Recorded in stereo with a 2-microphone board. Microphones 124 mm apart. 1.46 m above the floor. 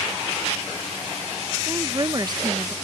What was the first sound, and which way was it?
A woman speaking, 35° right (ahead or behind).